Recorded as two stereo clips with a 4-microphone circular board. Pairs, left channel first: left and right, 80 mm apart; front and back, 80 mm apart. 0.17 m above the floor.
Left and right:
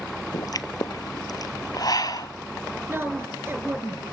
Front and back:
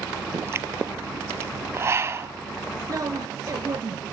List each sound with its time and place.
0.3 s a pop: 125° left, 0.8 m
2.9 s a woman speaking: 145° right, 2.5 m